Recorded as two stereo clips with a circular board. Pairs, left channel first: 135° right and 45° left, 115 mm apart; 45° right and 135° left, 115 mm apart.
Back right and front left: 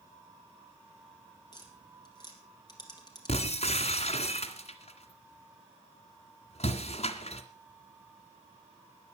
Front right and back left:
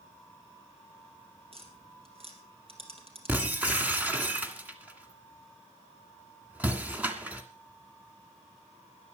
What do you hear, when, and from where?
1.5 s tapping: 170° left, 3.5 m
3.3 s breaking glass: 150° right, 2.0 m